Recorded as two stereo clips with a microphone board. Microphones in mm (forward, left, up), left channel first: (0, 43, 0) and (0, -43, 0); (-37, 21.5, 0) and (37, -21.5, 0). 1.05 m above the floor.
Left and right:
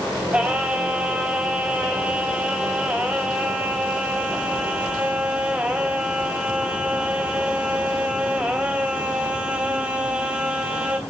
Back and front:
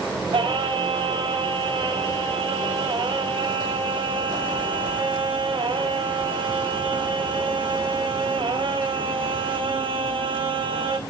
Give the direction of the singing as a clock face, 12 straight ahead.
12 o'clock.